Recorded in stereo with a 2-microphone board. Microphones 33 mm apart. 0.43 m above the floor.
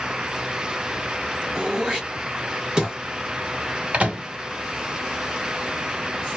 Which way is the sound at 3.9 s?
40° right (ahead or behind).